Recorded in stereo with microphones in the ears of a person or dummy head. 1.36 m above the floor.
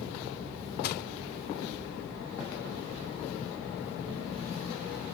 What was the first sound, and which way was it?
Crushing, 55° left (ahead or behind).